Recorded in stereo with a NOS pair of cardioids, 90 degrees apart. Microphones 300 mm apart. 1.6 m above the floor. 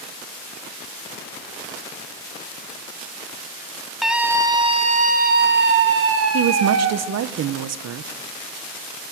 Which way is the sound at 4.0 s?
Straight ahead.